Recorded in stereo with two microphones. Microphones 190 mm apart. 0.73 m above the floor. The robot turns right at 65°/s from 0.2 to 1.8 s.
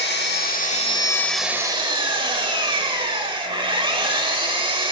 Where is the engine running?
105° left, 0.8 m; by 4.9 s 150° right, 0.8 m.